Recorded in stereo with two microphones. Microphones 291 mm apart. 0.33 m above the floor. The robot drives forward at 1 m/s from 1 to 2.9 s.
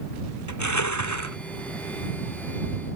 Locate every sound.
0.5 s crushing: 75° left (ahead or behind)